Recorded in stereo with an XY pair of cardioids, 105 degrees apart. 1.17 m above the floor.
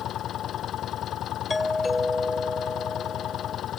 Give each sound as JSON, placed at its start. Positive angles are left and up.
{"t": 0.0, "sound": "an engine running", "azimuth_deg": 65}
{"t": 1.5, "sound": "a doorbell", "azimuth_deg": 15}